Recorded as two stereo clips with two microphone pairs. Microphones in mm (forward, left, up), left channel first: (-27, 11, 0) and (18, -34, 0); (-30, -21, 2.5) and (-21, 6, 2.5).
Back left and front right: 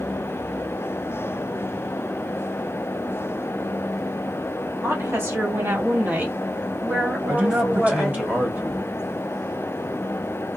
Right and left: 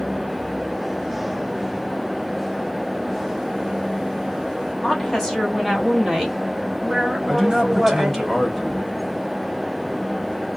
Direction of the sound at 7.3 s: 35° right.